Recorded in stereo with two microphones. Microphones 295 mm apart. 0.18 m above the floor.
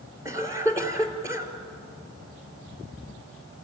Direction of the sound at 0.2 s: 10° right (ahead or behind).